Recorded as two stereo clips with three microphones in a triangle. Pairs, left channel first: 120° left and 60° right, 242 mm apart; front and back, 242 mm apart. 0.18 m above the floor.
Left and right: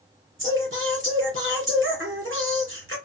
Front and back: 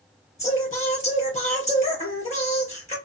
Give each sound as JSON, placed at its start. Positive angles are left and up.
{"t": 0.4, "sound": "singing", "azimuth_deg": -55, "distance_m": 2.5}